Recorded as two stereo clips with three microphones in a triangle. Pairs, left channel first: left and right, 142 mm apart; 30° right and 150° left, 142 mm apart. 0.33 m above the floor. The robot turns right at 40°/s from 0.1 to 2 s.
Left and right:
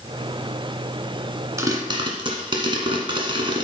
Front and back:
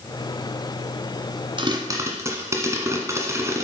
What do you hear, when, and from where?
1.6 s a pop: 160° right, 1.4 m; by 3.6 s 140° right, 1.4 m